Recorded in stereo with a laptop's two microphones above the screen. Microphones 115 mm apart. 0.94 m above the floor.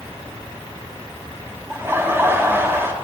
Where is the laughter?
20° right (ahead or behind), 0.9 m.